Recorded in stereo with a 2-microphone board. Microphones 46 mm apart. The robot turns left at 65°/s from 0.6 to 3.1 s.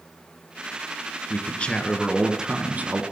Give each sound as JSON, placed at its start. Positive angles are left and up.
{"t": 1.3, "sound": "a man speaking", "azimuth_deg": 50, "distance_m": 2.0}